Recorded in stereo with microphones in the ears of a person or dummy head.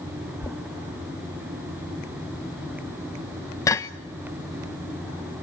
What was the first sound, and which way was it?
Knocking, 15° left (ahead or behind).